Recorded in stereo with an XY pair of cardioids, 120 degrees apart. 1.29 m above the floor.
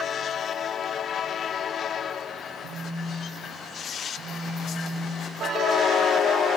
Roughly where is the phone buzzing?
Right.